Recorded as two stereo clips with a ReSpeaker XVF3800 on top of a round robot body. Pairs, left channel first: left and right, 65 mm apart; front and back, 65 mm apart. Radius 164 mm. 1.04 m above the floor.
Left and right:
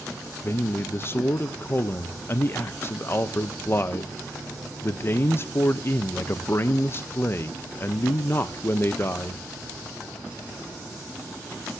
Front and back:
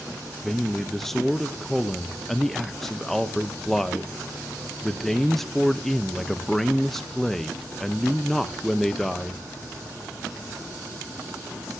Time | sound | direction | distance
0.4 | a man speaking | 85° left | 0.7 m